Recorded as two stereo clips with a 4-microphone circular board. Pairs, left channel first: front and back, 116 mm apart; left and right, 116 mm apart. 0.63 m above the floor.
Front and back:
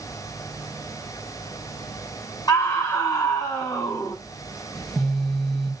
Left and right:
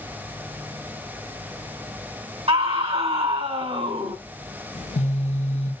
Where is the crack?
I don't hear a crack.